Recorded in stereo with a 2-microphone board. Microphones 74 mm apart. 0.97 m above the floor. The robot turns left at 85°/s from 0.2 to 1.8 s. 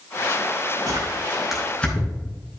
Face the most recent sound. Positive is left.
turn(degrees=15)  # may be behind; listen again after turning